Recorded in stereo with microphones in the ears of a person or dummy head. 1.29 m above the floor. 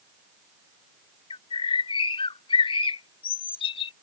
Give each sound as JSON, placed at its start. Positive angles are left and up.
{"t": 1.3, "sound": "a bird", "side_deg": 25}